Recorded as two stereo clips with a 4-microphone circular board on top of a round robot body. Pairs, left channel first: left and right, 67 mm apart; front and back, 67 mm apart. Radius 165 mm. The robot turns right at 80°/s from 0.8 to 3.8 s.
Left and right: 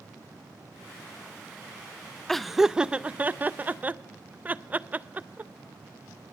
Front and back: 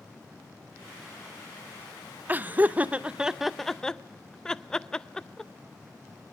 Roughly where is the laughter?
Behind.